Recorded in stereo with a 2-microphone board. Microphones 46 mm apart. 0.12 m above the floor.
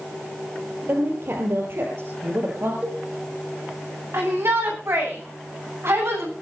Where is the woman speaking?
55° right (ahead or behind), 3 m.